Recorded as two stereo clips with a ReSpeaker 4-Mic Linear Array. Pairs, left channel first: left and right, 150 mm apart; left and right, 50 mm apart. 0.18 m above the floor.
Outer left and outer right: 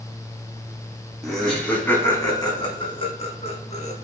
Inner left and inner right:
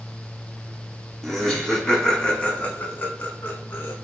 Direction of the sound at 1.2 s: Centre (ahead or behind).